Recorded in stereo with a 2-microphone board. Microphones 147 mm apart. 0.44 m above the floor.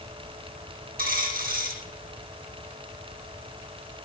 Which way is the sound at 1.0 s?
75° right (ahead or behind).